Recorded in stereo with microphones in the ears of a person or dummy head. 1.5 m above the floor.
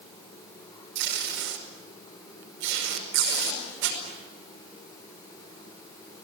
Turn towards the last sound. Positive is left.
turn(degrees=-65)  # may be behind; listen again after turning